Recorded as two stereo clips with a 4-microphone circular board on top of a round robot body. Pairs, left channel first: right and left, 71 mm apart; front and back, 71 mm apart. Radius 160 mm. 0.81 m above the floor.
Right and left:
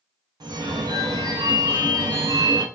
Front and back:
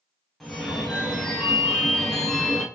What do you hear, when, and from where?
0.4 s a phone ringing: 85° left, 0.8 m